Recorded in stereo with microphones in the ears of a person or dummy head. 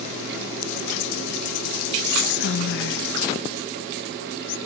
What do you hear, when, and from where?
2.0 s whispering: 65° left (ahead or behind), 0.7 m